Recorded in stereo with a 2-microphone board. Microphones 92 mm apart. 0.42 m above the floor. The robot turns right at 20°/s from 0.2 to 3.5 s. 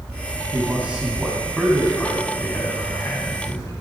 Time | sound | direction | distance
0.5 | a man speaking | 20° right | 3 m